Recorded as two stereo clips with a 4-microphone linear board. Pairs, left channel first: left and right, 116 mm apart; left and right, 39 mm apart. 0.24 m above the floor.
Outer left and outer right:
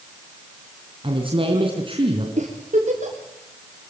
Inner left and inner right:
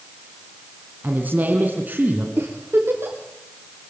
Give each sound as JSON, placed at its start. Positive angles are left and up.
{"t": 1.0, "sound": "a man speaking", "side_deg": -50, "distance_m": 3.5}
{"t": 2.4, "sound": "a giggle", "side_deg": -85, "distance_m": 7.0}